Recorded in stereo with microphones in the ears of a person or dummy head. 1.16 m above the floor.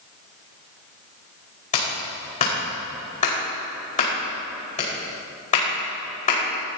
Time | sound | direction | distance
1.7 | a clap | 35° left (ahead or behind) | 5 m